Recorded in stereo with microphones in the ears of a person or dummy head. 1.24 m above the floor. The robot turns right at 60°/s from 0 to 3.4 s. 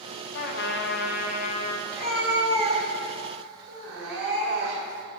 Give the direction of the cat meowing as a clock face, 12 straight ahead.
6 o'clock.